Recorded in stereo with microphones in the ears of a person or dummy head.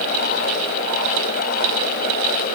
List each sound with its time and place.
Only background noise.